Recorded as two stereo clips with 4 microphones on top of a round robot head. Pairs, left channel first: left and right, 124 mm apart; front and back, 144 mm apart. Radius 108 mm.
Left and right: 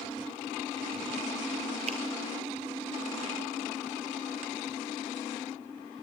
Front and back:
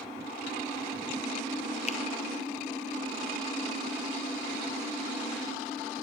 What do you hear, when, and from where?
1.9 s a finger snap: 50° right, 0.7 m